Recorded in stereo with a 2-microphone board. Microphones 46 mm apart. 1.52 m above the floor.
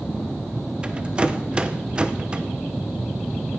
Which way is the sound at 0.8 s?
25° right (ahead or behind).